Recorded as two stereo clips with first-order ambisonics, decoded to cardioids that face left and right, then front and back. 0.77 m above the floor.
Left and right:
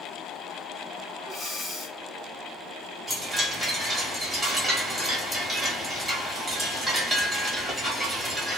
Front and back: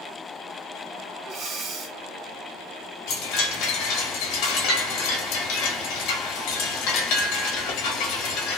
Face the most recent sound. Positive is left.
turn(degrees=-10)